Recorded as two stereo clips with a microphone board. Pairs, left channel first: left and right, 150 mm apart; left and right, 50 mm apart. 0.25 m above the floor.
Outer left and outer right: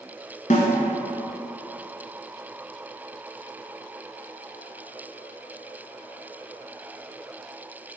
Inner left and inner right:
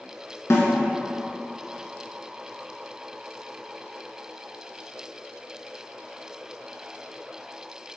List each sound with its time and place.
0.5 s a snare drum: 60° left (ahead or behind), 1.8 m